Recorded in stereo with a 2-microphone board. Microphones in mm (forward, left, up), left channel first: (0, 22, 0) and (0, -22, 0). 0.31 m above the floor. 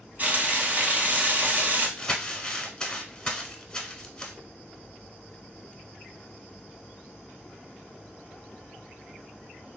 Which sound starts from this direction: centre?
Crumpling, at 2.0 s.